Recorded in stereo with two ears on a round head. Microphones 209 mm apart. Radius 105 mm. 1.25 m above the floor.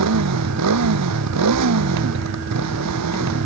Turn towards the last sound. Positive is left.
turn(degrees=-85)